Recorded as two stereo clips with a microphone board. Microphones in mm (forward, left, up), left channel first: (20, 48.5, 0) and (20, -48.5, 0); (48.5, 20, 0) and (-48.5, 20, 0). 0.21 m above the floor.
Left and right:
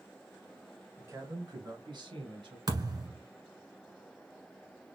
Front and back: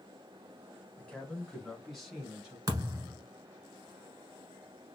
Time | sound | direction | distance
1.0 | a man speaking | 65° right | 1.2 m
2.7 | a thud | 130° right | 1.3 m